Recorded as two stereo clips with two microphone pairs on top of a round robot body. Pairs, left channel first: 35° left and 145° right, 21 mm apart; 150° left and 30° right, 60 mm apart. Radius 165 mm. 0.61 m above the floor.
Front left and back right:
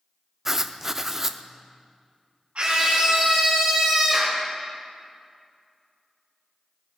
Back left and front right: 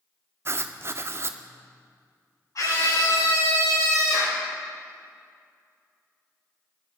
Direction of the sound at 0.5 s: 80° right.